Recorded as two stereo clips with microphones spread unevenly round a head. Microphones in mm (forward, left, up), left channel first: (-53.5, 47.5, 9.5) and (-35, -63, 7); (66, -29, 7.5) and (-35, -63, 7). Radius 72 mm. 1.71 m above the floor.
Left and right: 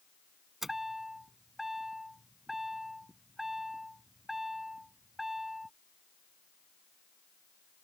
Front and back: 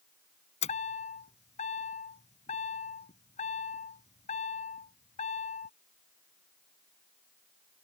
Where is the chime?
10° left.